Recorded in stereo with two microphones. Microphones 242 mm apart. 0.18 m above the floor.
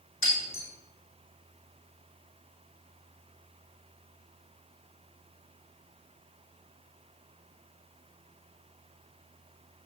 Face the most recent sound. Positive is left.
turn(degrees=65)  # may be behind; listen again after turning